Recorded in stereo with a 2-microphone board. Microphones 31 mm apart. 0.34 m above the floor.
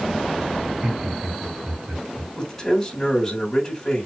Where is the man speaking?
10° left (ahead or behind), 3 m.